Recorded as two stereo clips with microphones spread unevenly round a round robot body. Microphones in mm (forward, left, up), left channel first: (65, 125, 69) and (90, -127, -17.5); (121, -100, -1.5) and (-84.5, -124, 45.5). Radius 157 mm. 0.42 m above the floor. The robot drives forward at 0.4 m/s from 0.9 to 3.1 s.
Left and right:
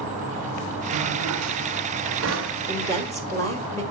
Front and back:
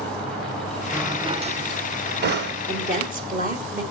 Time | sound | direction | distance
0.9 | a drawer | 90° right | 0.6 m
2.7 | a woman speaking | 150° right | 1.2 m